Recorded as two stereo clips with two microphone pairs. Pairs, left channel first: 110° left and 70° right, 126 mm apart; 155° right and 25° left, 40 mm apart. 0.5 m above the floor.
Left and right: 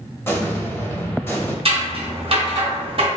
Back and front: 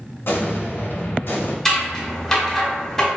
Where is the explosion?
Straight behind, 0.6 m.